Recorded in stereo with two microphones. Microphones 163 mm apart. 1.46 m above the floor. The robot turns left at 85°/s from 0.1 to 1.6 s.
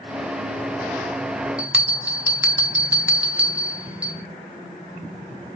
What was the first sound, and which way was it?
A bell, 5° right (ahead or behind).